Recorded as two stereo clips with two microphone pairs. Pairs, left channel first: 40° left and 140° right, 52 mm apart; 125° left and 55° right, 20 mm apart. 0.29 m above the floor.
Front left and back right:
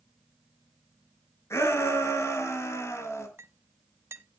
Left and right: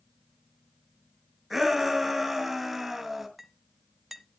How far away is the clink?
About 1.2 m.